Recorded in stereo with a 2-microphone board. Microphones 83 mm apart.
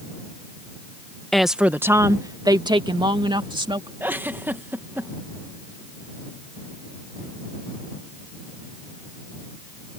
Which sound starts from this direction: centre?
A woman speaking, at 1.3 s.